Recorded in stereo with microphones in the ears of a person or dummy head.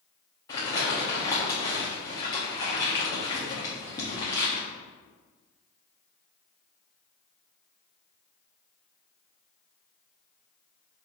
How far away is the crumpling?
About 1.0 m.